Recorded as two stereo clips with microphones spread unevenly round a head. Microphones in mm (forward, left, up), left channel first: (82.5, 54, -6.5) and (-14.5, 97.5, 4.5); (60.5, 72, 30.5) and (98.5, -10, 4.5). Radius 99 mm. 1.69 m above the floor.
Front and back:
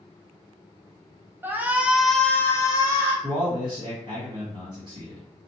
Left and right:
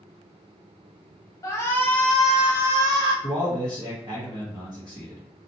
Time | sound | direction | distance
1.4 | a shout | 95° left | 0.8 m
3.2 | a man speaking | 140° right | 1.0 m